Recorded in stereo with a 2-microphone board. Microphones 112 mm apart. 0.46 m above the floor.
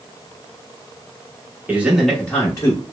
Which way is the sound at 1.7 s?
15° right (ahead or behind).